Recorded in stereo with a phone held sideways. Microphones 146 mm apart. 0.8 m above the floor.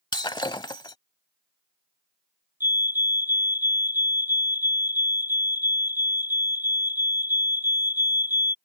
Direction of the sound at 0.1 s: 30° left (ahead or behind).